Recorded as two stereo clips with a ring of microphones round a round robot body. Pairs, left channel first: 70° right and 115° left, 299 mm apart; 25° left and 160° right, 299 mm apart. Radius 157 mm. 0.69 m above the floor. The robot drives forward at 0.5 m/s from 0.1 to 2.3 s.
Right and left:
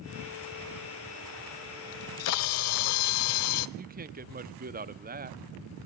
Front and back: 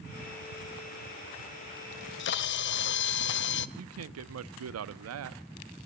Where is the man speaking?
170° left, 0.9 m.